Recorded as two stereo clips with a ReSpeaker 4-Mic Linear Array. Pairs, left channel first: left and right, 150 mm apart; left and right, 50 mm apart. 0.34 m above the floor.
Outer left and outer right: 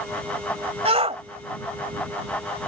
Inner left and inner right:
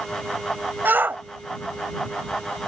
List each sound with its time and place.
0.8 s a shout: 40° right (ahead or behind)